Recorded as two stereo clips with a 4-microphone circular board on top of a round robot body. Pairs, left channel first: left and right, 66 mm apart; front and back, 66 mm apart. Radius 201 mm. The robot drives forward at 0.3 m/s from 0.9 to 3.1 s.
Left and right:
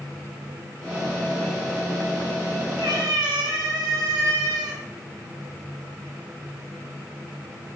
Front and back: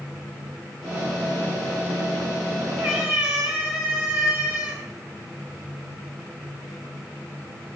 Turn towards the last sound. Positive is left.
turn(degrees=-105)